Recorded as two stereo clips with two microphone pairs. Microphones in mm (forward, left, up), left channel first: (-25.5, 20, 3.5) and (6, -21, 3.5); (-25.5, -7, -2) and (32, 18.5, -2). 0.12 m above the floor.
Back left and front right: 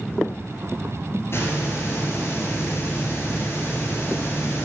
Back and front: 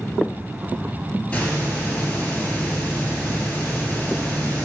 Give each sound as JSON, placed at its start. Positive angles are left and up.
{"t": 1.3, "sound": "a hiss", "azimuth_deg": 135, "distance_m": 1.1}